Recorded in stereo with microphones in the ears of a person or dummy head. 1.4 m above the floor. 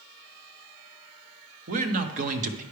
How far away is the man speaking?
About 0.9 m.